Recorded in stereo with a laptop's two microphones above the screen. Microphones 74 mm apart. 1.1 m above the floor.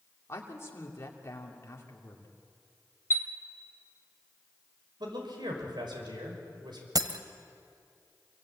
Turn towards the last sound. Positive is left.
turn(degrees=-60)  # may be behind; listen again after turning